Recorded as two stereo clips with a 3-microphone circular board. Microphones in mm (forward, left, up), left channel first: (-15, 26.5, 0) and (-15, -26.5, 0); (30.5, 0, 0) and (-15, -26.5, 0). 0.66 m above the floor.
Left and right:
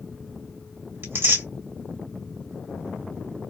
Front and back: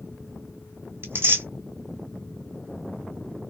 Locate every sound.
1.0 s tearing paper: 115° right, 1.9 m